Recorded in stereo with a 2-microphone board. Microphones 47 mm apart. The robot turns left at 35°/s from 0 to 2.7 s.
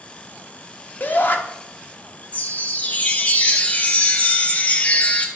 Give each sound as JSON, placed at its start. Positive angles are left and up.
{"t": 1.0, "sound": "a shout", "side_deg": 35, "distance_m": 0.7}
{"t": 2.3, "sound": "a chime", "side_deg": 30, "distance_m": 0.6}